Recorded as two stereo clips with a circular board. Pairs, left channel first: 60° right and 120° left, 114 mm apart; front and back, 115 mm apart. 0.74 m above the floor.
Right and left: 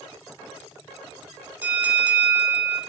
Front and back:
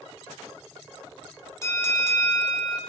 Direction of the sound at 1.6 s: 55° left.